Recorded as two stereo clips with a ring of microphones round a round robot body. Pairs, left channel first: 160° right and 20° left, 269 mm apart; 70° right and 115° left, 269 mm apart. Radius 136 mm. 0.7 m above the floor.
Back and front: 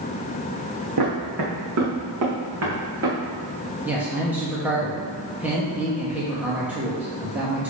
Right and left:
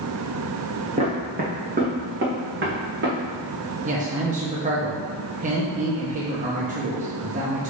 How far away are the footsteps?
About 2 m.